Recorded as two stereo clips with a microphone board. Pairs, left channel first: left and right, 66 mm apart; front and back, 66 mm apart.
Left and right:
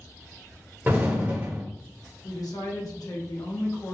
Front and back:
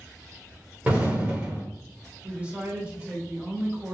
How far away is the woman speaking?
About 0.8 m.